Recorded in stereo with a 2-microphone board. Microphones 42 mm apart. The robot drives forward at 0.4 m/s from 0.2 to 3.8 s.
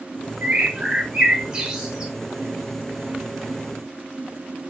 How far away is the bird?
About 0.5 m.